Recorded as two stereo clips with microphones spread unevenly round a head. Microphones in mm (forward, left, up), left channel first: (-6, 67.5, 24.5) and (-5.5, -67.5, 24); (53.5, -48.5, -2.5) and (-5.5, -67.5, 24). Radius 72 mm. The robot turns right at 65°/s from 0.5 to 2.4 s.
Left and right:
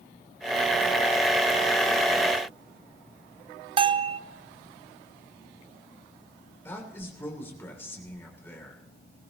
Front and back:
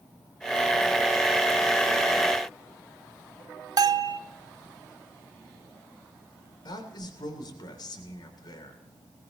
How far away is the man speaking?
About 3 m.